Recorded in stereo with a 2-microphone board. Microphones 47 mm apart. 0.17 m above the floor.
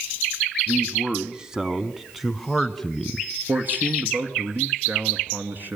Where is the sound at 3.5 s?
40° right (ahead or behind), 2.5 m.